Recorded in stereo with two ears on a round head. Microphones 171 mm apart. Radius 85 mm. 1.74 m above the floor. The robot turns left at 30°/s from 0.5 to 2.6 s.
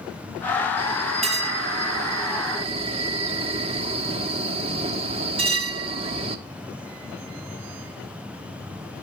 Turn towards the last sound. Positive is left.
turn(degrees=-115)